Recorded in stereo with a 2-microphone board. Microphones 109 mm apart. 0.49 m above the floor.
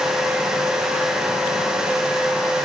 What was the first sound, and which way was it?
Only background noise.